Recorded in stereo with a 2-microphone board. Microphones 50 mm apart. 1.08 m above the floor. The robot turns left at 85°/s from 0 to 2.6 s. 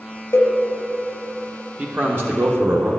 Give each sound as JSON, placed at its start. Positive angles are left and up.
{"t": 0.3, "sound": "a cowbell", "side_deg": 60, "distance_m": 0.9}
{"t": 1.8, "sound": "a man speaking", "azimuth_deg": -35, "distance_m": 0.8}